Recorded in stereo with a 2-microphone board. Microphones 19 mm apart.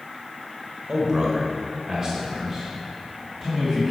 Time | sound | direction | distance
0.9 | a man speaking | 30° right (ahead or behind) | 1.5 m